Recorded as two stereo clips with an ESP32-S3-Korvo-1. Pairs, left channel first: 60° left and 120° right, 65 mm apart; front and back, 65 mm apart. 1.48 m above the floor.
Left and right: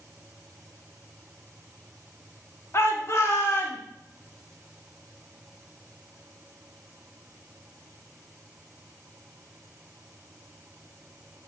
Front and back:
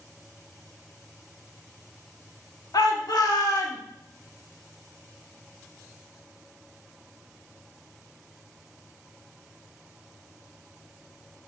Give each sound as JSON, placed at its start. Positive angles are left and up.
{"t": 2.7, "sound": "a shout", "azimuth_deg": 15, "distance_m": 1.3}